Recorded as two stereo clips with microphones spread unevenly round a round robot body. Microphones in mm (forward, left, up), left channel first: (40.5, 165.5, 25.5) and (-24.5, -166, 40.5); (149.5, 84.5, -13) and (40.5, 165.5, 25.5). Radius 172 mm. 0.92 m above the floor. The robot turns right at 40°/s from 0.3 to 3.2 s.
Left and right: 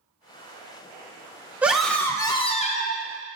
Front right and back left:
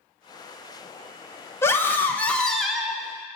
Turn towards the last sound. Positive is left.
turn(degrees=50)